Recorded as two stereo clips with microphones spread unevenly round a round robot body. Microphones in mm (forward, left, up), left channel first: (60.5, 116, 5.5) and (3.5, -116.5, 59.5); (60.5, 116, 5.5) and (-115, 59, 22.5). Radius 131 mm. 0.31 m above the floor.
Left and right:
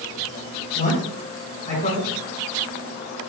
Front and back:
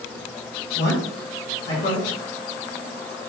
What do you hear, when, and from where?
0.8 s a man speaking: 25° left, 3.5 m